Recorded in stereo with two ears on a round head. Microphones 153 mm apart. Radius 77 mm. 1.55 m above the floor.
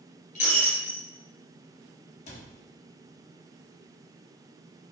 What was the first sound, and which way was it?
Breaking glass, 50° left (ahead or behind).